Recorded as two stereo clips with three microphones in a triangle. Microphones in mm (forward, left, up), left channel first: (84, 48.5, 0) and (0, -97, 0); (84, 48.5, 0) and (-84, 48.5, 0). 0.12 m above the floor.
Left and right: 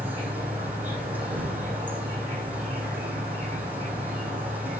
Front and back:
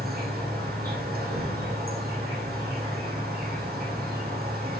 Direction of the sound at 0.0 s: 160° left.